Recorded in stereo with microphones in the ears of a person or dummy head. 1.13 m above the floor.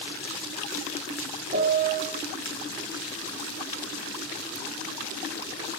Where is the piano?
30° right (ahead or behind), 1.6 m.